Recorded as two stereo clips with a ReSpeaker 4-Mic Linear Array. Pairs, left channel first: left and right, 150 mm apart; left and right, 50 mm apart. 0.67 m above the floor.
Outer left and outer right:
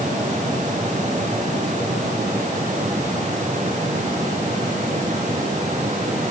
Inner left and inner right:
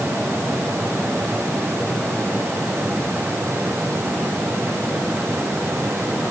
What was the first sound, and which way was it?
Only background noise.